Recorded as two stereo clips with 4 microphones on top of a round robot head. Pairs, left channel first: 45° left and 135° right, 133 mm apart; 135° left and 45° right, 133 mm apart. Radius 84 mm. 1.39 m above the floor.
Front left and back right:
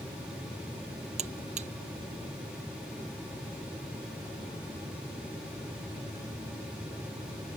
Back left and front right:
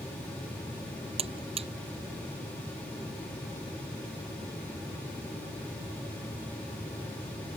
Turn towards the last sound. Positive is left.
turn(degrees=-95)